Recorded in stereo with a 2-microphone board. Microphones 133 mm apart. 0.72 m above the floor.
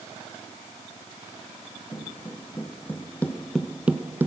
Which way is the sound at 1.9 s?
15° left (ahead or behind).